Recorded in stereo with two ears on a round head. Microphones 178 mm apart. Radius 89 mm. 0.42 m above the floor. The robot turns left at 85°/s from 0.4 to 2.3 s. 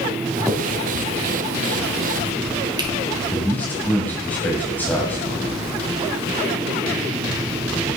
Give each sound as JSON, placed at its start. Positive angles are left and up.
{"t": 0.5, "sound": "a finger snap", "side_deg": 0, "distance_m": 2.0}
{"t": 3.3, "sound": "a man speaking", "side_deg": 10, "distance_m": 2.0}